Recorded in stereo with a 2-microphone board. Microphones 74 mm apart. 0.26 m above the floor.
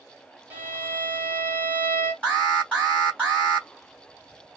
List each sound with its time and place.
0.5 s a violin: 25° right (ahead or behind), 1.7 m
2.2 s an alarm: 15° right (ahead or behind), 3 m